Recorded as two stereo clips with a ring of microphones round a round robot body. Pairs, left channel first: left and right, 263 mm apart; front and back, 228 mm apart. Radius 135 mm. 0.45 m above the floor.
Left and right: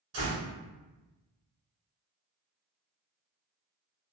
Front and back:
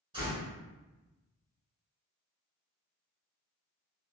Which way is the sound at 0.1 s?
110° right.